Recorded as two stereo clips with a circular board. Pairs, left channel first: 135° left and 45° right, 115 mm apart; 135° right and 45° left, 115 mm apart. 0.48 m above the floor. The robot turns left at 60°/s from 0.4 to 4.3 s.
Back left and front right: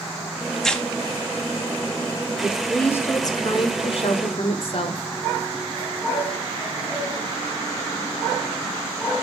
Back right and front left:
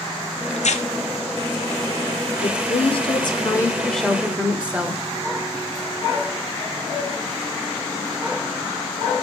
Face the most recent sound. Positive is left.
turn(degrees=120)